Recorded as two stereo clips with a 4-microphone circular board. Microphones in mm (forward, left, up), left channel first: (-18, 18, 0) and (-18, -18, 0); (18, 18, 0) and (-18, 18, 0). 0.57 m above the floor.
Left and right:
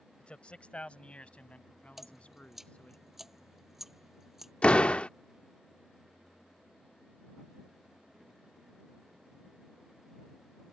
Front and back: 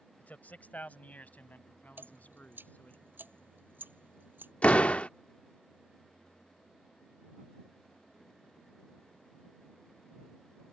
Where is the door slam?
40° left.